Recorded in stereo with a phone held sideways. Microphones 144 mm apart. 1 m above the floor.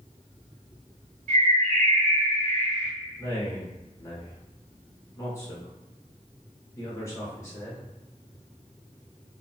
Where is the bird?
75° right (ahead or behind), 1.4 m.